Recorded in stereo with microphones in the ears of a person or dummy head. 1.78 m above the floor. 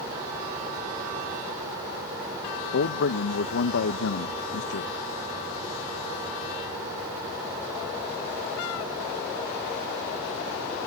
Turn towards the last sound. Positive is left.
turn(degrees=70)  # may be behind; listen again after turning